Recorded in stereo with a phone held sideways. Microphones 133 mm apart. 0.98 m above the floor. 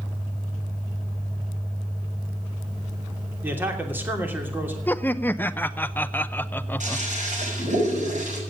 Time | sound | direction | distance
3.4 | a man speaking | 15° right (ahead or behind) | 3 m
4.9 | laughter | 15° left (ahead or behind) | 0.6 m
6.8 | a toilet flushing | 65° right (ahead or behind) | 6.5 m